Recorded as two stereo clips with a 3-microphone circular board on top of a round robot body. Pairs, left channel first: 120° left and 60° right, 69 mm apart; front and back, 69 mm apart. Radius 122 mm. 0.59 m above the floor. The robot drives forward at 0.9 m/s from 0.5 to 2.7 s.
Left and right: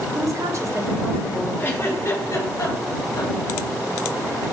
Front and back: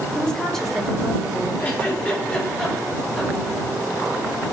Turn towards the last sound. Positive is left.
turn(degrees=85)